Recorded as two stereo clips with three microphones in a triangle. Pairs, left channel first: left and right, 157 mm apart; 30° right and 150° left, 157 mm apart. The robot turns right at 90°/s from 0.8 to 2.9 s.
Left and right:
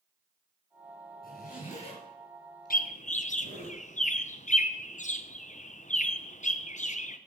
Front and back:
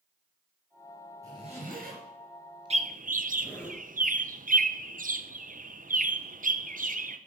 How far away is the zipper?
About 3.5 m.